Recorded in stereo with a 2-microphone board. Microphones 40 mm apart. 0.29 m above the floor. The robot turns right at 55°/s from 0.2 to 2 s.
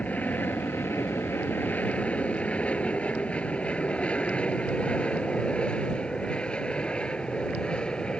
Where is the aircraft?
40° left (ahead or behind); by 8.2 s 20° left (ahead or behind).